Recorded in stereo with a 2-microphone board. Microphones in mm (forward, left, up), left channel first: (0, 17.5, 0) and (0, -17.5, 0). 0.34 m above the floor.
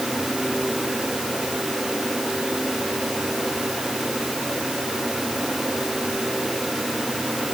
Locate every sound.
Only background noise.